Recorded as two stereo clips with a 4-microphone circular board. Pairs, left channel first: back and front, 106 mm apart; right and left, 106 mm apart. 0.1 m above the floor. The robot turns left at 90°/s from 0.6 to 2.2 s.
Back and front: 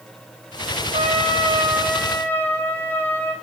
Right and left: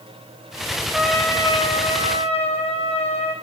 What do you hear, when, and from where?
0.9 s a trumpet: 5° left, 3 m; by 3.4 s 105° right, 3 m